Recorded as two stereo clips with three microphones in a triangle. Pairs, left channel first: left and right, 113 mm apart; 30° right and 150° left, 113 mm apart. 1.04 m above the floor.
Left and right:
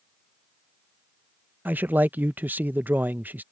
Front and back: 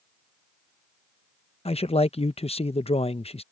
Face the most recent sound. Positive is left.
turn(degrees=-15)